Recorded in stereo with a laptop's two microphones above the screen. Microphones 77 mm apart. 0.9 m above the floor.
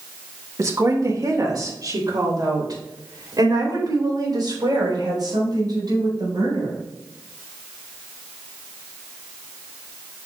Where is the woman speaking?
45° right (ahead or behind), 1.4 m; by 6.8 s 60° right (ahead or behind), 5.5 m.